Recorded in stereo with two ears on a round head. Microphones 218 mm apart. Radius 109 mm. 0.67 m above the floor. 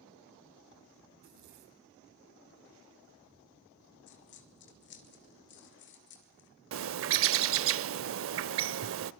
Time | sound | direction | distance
1.1 | a zipper | 80° right | 2.5 m
4.1 | a dropped coin | 50° left (ahead or behind) | 2.5 m
6.7 | a bird | 55° right (ahead or behind) | 0.6 m